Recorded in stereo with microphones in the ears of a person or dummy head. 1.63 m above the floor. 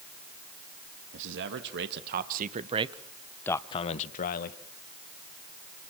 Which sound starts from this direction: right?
A man speaking, at 1.1 s.